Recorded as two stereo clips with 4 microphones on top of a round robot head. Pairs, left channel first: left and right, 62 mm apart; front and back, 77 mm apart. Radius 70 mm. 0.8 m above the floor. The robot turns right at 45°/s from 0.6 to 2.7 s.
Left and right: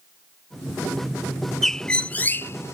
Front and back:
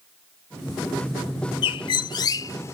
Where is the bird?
5° left; by 2.7 s 50° left.